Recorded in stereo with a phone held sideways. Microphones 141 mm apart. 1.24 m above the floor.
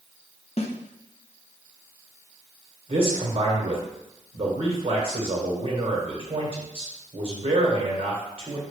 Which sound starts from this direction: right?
A man speaking, at 2.9 s.